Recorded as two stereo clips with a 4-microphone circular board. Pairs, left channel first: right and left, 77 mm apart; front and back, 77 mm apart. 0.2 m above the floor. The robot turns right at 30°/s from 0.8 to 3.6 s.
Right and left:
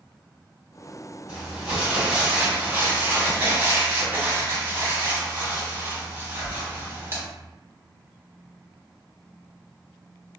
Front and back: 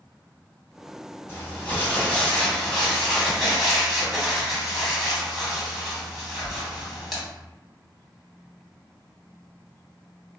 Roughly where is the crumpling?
Ahead.